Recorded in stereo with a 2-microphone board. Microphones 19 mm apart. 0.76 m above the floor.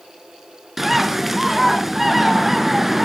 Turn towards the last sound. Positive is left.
turn(degrees=-5)  # may be behind; listen again after turning